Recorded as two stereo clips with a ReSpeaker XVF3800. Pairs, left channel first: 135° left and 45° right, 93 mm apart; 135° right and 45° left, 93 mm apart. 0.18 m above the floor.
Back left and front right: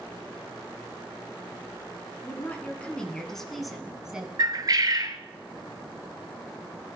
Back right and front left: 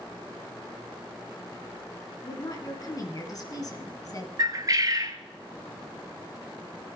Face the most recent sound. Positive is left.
turn(degrees=0)